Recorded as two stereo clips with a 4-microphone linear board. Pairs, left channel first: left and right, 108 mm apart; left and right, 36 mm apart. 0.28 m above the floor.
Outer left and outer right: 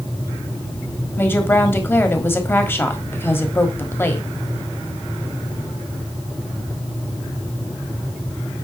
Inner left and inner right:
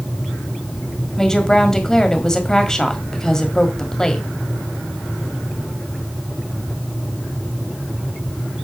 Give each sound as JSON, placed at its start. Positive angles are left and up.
{"t": 1.2, "sound": "a woman speaking", "side_deg": 20, "distance_m": 1.4}